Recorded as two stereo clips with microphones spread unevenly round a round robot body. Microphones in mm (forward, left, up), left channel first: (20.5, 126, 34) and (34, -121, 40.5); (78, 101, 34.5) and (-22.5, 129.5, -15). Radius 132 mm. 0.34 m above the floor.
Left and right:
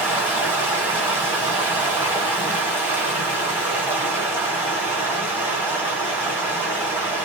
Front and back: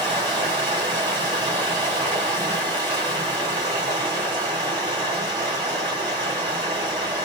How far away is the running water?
About 1.5 m.